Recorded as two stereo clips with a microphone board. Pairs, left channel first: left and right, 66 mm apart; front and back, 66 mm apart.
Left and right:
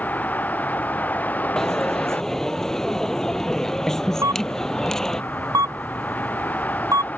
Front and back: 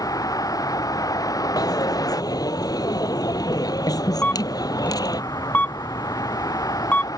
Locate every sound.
0.0 s a vehicle: 25° left
1.6 s a dropped coin: 5° left
4.2 s a camera shutter: 65° right